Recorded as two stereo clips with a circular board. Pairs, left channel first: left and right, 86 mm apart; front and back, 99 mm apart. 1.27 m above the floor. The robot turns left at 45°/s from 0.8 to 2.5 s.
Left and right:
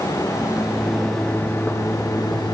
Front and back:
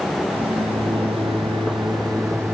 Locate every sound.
0.3 s a microwave: 170° right, 1.0 m; by 2.5 s 110° left, 1.0 m